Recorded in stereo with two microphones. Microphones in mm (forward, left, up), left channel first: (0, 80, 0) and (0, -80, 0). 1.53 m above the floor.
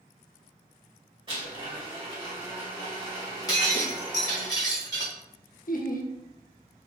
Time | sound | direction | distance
1.3 | a blender | 30° right (ahead or behind) | 1.9 m
3.5 | breaking glass | 25° left (ahead or behind) | 1.4 m
5.7 | laughter | 60° left (ahead or behind) | 0.7 m